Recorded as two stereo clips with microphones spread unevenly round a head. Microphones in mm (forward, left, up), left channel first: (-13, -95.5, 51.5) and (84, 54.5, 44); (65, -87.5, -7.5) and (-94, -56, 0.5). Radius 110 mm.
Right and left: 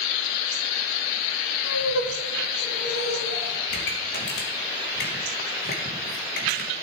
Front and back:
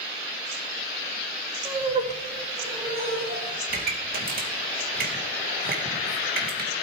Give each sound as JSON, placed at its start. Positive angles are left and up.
{"t": 1.6, "sound": "laughter", "azimuth_deg": -135, "distance_m": 2.5}
{"t": 3.7, "sound": "a pop", "azimuth_deg": -165, "distance_m": 2.5}